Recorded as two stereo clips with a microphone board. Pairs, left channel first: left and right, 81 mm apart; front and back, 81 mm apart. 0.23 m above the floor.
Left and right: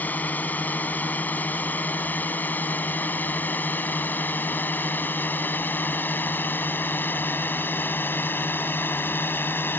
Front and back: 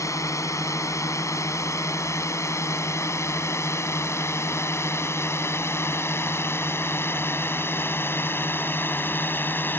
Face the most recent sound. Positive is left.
turn(degrees=45)